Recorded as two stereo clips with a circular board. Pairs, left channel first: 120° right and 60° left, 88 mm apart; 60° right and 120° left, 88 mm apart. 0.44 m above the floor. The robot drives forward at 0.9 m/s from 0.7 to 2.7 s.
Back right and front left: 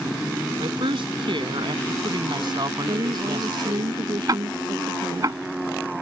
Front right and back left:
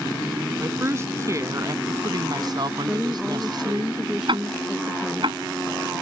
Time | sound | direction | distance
0.6 | a woman speaking | 60° left | ?
2.9 | a woman speaking | 35° left | ?
4.3 | ticking | 105° left | ?